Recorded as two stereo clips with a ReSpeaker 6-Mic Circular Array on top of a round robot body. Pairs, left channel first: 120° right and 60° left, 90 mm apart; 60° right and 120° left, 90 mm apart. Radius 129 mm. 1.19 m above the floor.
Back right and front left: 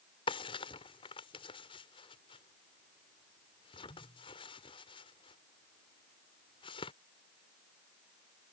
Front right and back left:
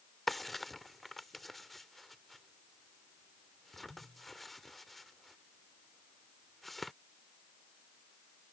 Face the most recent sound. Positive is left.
turn(degrees=-150)